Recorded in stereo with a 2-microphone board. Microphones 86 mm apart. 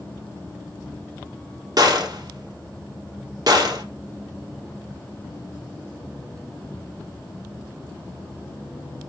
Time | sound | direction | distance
1.8 | a gunshot | 50° right (ahead or behind) | 2 m